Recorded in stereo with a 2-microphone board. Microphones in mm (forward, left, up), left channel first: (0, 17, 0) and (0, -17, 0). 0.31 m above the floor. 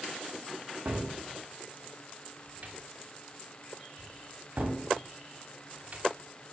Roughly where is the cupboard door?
Right.